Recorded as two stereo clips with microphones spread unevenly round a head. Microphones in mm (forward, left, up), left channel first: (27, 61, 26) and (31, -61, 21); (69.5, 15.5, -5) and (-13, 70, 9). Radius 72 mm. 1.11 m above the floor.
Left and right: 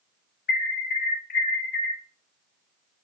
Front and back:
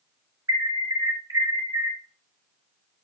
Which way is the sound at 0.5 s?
90° left.